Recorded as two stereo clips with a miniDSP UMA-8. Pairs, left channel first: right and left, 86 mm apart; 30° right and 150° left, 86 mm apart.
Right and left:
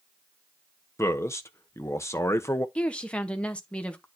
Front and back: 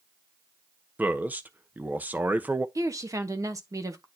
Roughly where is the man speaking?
Behind right.